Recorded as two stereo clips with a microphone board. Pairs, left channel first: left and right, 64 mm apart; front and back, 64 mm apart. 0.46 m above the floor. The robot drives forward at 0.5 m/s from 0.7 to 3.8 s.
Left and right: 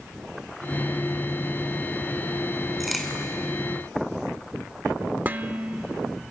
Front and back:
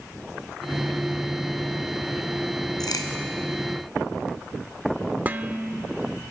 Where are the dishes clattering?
135° right, 0.7 m.